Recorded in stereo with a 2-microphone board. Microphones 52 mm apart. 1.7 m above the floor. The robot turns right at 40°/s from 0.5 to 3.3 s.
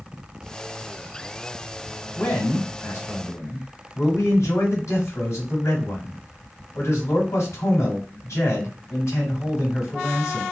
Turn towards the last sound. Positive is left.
turn(degrees=90)